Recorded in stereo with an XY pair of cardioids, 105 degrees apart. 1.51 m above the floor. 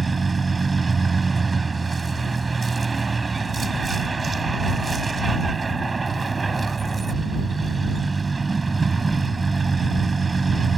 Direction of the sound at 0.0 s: 25° right.